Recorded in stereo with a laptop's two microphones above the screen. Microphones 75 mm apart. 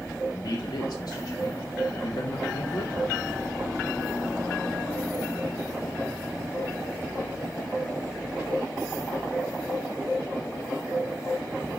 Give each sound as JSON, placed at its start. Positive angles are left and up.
{"t": 0.3, "sound": "a man speaking", "side_deg": 55, "distance_m": 1.5}